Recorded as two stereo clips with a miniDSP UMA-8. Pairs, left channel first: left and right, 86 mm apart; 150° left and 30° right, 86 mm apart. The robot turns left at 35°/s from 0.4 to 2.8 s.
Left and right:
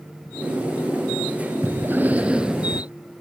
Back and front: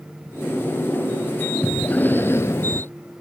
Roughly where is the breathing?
Behind right.